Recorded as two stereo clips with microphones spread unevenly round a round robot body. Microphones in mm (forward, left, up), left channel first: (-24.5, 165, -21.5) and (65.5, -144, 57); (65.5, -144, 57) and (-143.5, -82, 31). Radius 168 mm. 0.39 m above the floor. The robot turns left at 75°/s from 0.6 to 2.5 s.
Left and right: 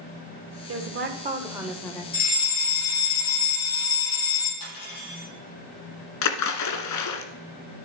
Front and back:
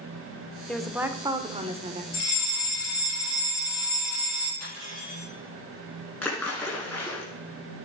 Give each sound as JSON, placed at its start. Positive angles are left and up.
{"t": 0.7, "sound": "a woman speaking", "azimuth_deg": -110, "distance_m": 1.2}
{"t": 2.1, "sound": "a fire alarm", "azimuth_deg": 60, "distance_m": 4.5}
{"t": 4.6, "sound": "cutlery clinking", "azimuth_deg": 140, "distance_m": 6.5}
{"t": 6.2, "sound": "a splash", "azimuth_deg": 70, "distance_m": 1.3}